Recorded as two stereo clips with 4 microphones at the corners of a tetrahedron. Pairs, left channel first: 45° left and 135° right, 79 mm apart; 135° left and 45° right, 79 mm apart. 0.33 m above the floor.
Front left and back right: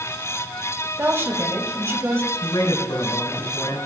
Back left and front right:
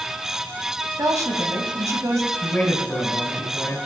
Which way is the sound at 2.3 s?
65° left.